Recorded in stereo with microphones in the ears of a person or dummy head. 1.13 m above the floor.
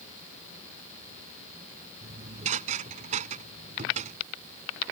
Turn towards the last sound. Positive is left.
turn(degrees=-45)  # may be behind; listen again after turning